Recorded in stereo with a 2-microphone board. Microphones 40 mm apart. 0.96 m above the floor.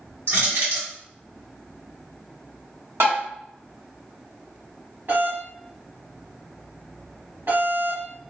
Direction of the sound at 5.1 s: 55° right (ahead or behind).